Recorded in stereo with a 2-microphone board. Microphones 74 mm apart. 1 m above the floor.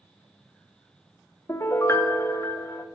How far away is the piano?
About 0.7 m.